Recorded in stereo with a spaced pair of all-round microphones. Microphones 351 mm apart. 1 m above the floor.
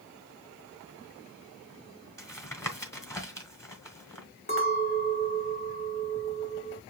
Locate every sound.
2.2 s tapping: 10° left (ahead or behind), 1.3 m
4.5 s a clink: 35° left (ahead or behind), 2 m